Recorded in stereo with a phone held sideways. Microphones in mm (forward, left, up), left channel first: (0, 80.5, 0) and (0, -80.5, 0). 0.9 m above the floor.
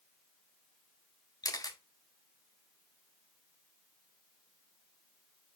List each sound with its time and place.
1.4 s a camera shutter: 25° left (ahead or behind), 0.6 m